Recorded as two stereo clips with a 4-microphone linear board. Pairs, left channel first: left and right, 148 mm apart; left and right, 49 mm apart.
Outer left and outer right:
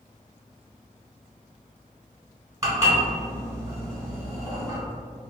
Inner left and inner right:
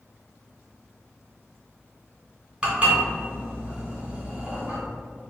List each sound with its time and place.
2.6 s dishes clattering: 20° right (ahead or behind), 1.5 m